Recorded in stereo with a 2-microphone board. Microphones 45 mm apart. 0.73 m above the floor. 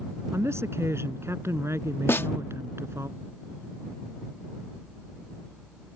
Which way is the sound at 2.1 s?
55° left (ahead or behind).